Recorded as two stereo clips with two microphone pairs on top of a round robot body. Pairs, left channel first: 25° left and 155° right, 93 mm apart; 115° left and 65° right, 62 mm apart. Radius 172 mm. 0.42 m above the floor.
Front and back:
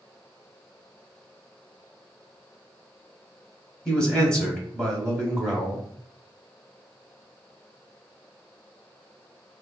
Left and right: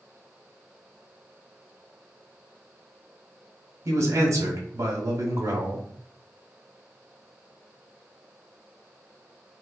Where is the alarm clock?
No alarm clock in this recording.